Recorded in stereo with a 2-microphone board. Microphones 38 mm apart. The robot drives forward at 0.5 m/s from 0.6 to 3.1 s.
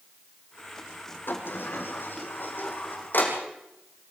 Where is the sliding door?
70° left (ahead or behind), 3.5 m; by 3.4 s 60° left (ahead or behind), 4 m.